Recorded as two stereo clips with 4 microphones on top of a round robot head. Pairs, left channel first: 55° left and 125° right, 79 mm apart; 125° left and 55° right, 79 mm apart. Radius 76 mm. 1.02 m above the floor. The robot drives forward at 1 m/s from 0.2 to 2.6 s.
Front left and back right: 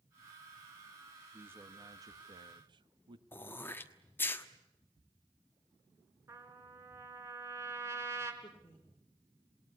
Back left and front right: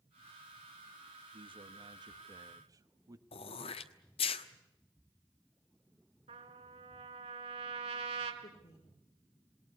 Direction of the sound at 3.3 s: 120° left.